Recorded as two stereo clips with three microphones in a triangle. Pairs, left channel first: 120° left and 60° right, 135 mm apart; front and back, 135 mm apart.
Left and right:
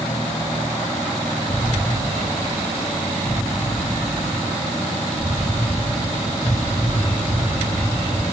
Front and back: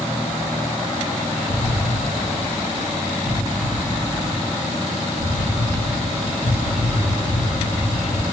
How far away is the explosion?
About 2.5 m.